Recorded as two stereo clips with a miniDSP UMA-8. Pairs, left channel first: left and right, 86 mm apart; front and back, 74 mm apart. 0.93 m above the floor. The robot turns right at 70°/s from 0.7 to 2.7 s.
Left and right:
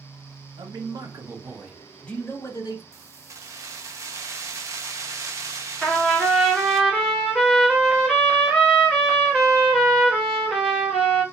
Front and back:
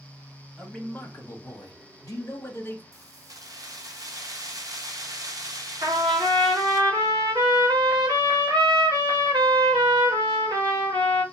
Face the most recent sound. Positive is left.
turn(degrees=175)